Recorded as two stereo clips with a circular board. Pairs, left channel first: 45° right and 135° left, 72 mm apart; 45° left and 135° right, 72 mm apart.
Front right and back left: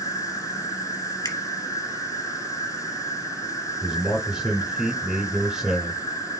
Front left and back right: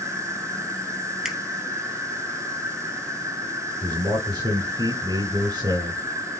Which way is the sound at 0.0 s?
90° right.